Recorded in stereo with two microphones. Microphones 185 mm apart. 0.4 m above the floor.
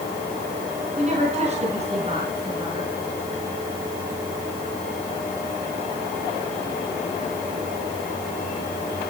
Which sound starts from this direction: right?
A woman speaking, at 1.0 s.